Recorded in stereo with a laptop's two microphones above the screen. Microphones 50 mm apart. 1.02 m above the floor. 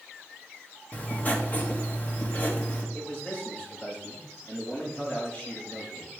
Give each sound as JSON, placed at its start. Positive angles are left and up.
{"t": 0.9, "sound": "writing", "side_deg": 30, "distance_m": 1.2}
{"t": 2.9, "sound": "a man speaking", "side_deg": 20, "distance_m": 4.0}